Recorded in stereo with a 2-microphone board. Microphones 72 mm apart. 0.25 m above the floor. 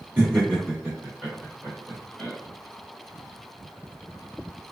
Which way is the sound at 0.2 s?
25° right (ahead or behind).